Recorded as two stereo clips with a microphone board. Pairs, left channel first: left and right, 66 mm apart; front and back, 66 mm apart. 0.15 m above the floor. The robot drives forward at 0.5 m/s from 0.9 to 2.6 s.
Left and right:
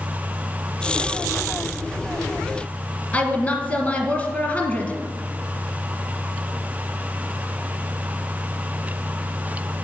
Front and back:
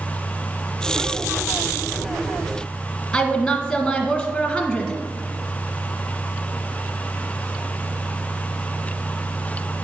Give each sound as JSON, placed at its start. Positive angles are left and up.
{"t": 3.1, "sound": "a woman speaking", "azimuth_deg": 70, "distance_m": 1.4}